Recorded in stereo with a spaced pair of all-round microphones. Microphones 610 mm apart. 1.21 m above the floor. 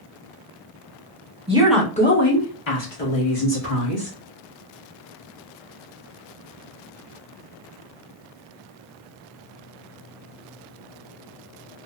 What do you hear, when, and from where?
1.5 s a woman speaking: 10° right (ahead or behind), 1.0 m; by 4.1 s 70° left (ahead or behind), 1.8 m